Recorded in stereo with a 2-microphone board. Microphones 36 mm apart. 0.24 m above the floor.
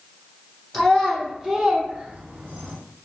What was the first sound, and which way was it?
A child speaking, 15° left (ahead or behind).